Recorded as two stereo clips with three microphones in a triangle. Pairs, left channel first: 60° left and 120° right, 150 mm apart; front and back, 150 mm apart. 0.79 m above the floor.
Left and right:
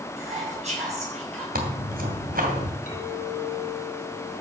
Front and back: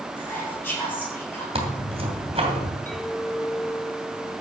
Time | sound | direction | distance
0.2 | whispering | 75° right | 8.5 m
1.6 | tearing paper | 130° right | 2.5 m
2.9 | a clink | 85° left | 4 m